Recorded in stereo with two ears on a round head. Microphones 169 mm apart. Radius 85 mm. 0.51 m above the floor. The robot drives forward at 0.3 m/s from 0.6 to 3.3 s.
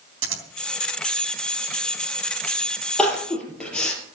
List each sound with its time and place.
0.2 s scissors: 75° right (ahead or behind), 3.5 m
3.0 s crying: 5° left (ahead or behind), 4 m